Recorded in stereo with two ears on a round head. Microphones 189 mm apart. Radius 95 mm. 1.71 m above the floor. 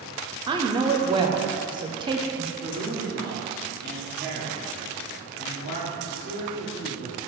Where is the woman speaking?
20° right (ahead or behind), 0.6 m.